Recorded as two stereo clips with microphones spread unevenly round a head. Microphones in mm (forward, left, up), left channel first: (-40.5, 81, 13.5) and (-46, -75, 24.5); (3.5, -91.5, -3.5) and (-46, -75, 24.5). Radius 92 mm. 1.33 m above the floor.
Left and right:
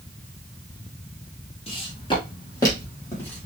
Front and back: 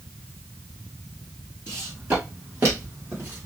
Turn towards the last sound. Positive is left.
turn(degrees=170)